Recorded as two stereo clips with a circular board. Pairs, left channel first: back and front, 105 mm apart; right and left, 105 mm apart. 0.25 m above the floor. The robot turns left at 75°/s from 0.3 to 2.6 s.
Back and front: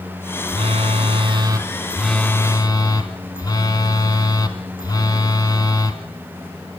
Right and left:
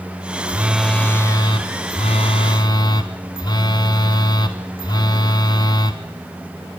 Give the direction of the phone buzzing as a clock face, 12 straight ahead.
11 o'clock.